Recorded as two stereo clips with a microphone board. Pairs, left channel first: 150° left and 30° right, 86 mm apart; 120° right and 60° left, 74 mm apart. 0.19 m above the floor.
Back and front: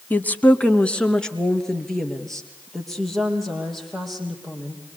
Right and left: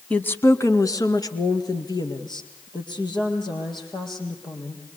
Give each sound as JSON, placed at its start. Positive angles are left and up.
{"t": 0.1, "sound": "a woman speaking", "azimuth_deg": -170, "distance_m": 1.1}